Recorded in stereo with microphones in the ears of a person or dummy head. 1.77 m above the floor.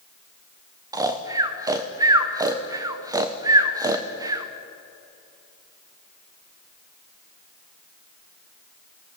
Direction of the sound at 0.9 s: 15° right (ahead or behind).